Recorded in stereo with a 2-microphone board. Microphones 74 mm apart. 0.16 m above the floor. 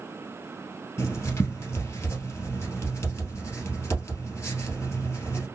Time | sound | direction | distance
1.0 | writing | 40° left (ahead or behind) | 1.9 m